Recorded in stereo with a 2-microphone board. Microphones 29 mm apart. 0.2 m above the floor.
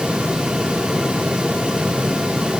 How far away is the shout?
I don't hear a shout.